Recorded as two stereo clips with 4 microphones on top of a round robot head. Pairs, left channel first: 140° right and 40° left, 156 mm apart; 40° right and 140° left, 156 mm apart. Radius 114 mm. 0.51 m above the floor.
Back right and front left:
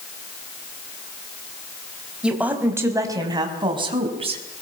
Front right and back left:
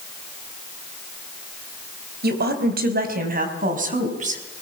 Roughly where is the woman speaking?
Behind left.